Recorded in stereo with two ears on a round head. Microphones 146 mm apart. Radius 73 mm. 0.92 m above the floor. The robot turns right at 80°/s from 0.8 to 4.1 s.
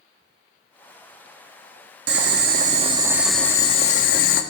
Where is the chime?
I don't hear a chime.